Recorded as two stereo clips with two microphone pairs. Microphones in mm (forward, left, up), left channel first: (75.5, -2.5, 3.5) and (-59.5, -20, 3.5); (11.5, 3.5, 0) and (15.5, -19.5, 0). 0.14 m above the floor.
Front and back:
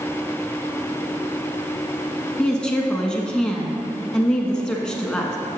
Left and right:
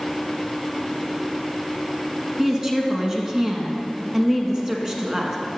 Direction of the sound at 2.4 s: 65° right.